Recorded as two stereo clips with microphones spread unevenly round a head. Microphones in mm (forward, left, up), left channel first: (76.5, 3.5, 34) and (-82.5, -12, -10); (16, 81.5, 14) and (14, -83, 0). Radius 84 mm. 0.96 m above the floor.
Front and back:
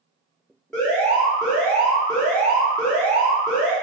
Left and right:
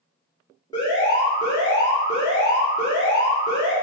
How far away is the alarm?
About 1.5 m.